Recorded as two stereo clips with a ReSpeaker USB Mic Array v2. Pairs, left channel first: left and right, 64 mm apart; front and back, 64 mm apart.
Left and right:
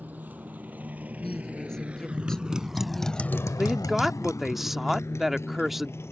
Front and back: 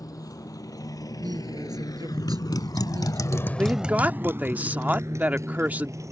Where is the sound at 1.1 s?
170° left.